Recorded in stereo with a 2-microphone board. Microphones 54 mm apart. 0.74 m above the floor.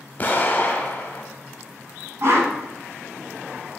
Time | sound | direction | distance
0.2 | an explosion | 35° left (ahead or behind) | 0.6 m
2.2 | a whoosh | 60° right (ahead or behind) | 1.1 m